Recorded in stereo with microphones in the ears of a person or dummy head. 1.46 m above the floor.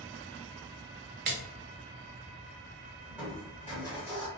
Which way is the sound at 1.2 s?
50° right (ahead or behind).